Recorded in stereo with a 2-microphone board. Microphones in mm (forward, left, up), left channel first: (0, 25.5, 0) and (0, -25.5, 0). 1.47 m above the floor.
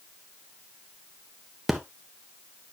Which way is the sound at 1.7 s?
5° right (ahead or behind).